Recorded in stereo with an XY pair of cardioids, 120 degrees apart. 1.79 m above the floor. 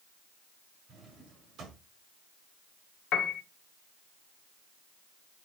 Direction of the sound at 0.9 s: 60° right.